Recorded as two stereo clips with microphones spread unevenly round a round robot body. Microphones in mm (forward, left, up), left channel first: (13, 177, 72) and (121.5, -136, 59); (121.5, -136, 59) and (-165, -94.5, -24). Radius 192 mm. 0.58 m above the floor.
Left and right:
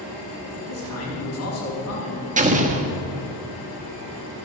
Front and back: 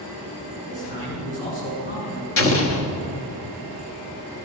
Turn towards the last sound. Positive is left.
turn(degrees=-30)